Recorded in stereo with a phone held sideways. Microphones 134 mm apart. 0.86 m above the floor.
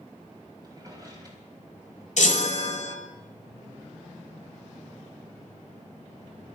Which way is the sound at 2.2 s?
65° left (ahead or behind).